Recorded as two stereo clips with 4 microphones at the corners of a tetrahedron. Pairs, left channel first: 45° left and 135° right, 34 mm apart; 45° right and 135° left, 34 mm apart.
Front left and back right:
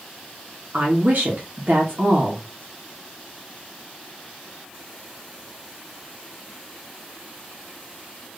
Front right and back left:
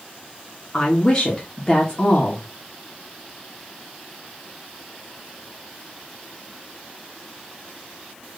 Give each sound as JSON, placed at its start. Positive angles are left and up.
{"t": 0.7, "sound": "a woman speaking", "azimuth_deg": -110, "distance_m": 1.9}